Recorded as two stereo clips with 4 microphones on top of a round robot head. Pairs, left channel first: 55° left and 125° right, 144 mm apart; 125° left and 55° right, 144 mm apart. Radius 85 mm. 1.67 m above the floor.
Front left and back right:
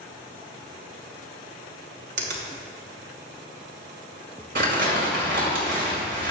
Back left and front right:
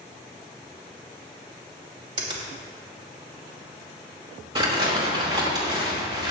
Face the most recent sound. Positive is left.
turn(degrees=-115)